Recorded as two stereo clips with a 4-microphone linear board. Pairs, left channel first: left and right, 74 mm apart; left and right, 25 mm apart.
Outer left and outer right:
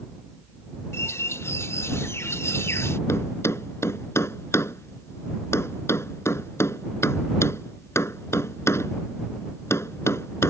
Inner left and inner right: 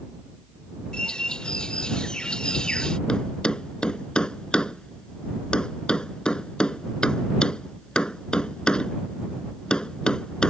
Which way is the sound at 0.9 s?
35° left (ahead or behind).